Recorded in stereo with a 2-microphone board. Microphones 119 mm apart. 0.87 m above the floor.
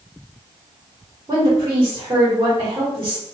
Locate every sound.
1.3 s a woman speaking: 25° right (ahead or behind), 1.9 m